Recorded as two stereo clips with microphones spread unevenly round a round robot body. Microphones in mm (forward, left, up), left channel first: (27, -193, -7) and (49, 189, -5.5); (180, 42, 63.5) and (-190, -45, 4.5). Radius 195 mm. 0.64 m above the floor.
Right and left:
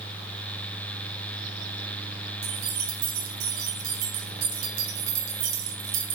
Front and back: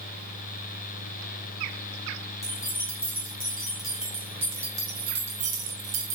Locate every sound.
2.4 s keys jangling: 95° left, 7 m; by 6.2 s 135° left, 3 m